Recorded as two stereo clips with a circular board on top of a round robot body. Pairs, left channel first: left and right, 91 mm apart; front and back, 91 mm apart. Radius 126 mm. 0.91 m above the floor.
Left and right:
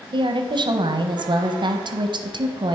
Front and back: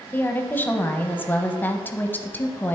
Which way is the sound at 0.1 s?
70° right.